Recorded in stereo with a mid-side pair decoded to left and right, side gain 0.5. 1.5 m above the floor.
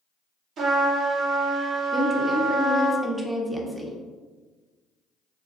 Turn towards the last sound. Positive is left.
turn(degrees=-10)